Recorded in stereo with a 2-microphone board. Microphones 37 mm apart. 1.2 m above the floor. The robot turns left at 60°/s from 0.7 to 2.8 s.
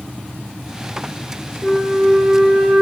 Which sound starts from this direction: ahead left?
A flute, at 1.6 s.